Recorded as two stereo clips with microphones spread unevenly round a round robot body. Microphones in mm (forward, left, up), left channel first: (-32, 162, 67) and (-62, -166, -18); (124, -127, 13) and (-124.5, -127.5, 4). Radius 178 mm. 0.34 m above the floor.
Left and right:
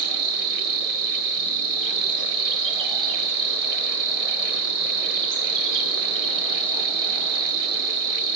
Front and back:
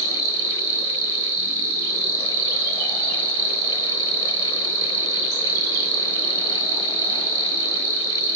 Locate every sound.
0.0 s an insect: 175° right, 0.8 m